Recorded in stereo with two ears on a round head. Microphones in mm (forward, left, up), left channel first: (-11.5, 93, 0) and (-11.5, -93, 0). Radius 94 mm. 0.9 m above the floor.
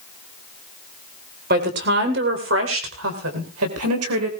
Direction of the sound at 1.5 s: 45° right (ahead or behind).